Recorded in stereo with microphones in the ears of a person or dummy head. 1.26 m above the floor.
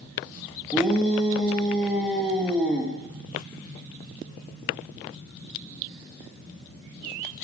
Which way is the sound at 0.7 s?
5° right (ahead or behind).